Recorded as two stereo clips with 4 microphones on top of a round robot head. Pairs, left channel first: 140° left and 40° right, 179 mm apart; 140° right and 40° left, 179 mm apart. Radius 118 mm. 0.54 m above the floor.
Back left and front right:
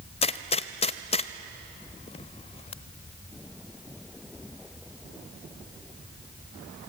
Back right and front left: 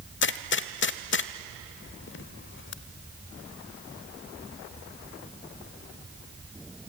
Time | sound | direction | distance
0.2 | a gunshot | 160° right | 0.7 m